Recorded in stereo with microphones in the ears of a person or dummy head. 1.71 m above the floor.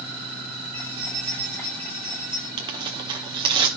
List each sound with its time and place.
0.7 s keys jangling: 15° left (ahead or behind), 7.5 m
2.6 s tearing paper: 25° right (ahead or behind), 0.7 m